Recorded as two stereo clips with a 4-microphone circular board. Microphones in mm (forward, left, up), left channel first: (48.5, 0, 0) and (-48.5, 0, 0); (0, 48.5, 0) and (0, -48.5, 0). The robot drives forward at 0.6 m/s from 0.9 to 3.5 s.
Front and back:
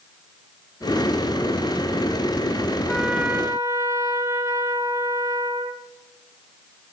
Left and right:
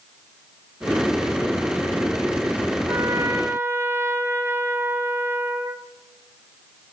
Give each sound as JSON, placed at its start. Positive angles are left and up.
{"t": 2.9, "sound": "a trumpet", "azimuth_deg": -80, "distance_m": 0.5}